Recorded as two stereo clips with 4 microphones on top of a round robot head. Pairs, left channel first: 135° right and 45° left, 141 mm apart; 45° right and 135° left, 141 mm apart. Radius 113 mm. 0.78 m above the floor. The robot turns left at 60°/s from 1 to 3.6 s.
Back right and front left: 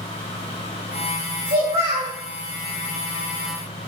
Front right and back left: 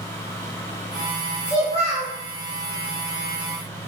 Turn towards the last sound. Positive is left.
turn(degrees=-110)